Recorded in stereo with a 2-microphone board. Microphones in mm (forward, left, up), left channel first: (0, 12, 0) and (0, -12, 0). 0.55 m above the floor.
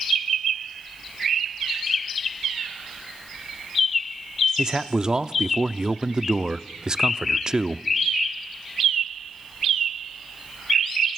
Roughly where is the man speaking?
Right.